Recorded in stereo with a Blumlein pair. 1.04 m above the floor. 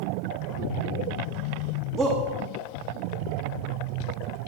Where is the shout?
20° right, 0.9 m.